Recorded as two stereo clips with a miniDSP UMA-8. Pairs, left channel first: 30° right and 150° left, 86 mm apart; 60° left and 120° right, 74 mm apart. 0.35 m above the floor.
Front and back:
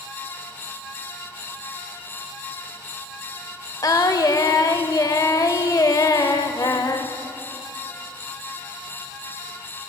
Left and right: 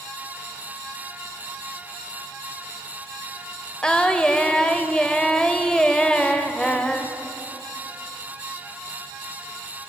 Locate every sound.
3.8 s singing: 15° right, 0.6 m